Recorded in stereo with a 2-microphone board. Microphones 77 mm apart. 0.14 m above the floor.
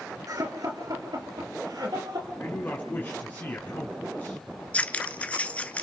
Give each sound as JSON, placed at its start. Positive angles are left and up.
{"t": 0.3, "sound": "laughter", "side_deg": -50, "distance_m": 2.0}
{"t": 2.4, "sound": "a man speaking", "side_deg": 30, "distance_m": 2.0}
{"t": 4.7, "sound": "scissors", "side_deg": 20, "distance_m": 0.8}